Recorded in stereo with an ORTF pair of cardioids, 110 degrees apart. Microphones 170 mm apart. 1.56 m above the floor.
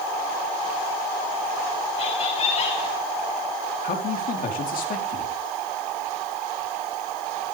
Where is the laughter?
40° left, 2.0 m.